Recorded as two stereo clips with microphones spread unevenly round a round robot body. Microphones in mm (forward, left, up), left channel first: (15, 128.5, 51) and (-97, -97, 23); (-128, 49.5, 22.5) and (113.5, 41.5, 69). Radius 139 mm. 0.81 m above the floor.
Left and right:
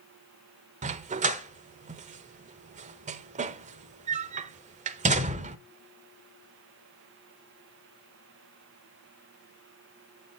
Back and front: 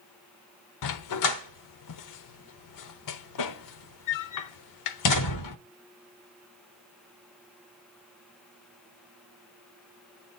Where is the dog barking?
Straight behind, 0.9 m.